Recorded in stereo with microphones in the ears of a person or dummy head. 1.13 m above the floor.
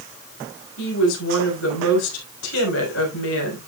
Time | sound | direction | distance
0.8 | a woman speaking | 70° left (ahead or behind) | 5.5 m